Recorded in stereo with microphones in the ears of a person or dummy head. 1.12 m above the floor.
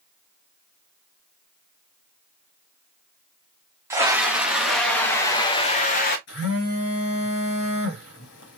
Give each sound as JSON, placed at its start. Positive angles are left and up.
{"t": 3.9, "sound": "a scream", "side_deg": -10, "distance_m": 1.9}
{"t": 6.3, "sound": "a phone buzzing", "side_deg": 70, "distance_m": 3.0}